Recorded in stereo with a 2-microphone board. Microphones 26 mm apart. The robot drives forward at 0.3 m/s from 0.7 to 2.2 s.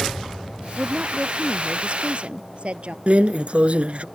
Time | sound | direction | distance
0.8 | a woman speaking | 45° right (ahead or behind) | ?
3.1 | a drawer | 60° right (ahead or behind) | ?